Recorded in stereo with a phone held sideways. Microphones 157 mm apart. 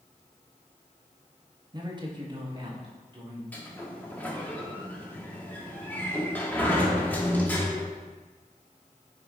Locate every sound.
1.7 s a man speaking: 30° right (ahead or behind), 1.0 m
3.5 s a sliding door: 10° left (ahead or behind), 1.3 m